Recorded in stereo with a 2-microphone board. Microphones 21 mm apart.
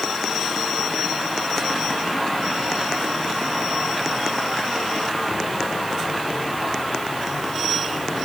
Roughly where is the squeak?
No squeak in this recording.